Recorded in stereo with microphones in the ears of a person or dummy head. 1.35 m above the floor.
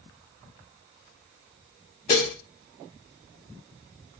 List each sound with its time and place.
2.1 s dishes clattering: 25° left (ahead or behind), 0.6 m